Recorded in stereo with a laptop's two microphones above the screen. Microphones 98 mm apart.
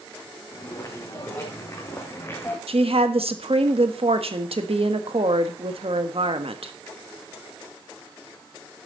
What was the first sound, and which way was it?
Footsteps, 35° left (ahead or behind).